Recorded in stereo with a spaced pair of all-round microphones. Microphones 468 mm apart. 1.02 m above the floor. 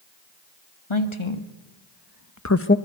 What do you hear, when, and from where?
0.9 s a woman speaking: 75° left (ahead or behind), 2 m; by 2.8 s 20° left (ahead or behind), 0.9 m